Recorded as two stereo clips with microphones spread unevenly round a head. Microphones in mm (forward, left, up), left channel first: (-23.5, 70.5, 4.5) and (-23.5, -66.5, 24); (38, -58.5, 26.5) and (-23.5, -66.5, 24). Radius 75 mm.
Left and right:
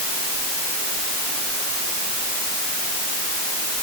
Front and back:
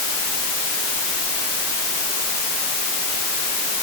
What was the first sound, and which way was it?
Only background noise.